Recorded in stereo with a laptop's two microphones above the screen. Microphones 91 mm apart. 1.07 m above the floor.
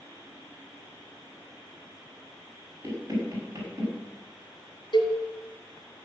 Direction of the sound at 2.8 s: 30° right (ahead or behind).